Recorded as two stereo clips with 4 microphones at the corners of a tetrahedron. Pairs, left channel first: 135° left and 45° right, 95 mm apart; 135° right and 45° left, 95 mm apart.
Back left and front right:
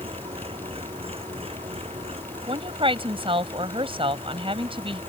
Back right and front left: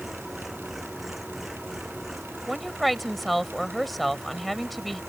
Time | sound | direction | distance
0.0 | an engine running | 40° right | ?
2.5 | a woman speaking | 45° right | ?